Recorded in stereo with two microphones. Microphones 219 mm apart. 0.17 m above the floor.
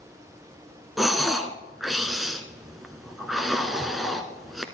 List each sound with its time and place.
1.0 s breathing: centre (ahead or behind), 1.0 m